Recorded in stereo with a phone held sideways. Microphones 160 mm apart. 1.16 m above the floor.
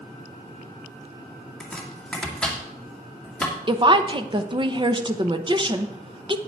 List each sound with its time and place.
1.6 s chopping: 5° left (ahead or behind), 2.0 m
3.7 s a woman speaking: 30° right (ahead or behind), 0.8 m